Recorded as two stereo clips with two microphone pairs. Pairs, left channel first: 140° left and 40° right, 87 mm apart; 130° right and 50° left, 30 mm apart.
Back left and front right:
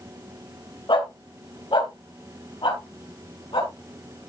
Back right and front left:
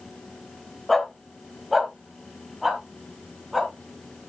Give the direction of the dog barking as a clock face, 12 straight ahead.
7 o'clock.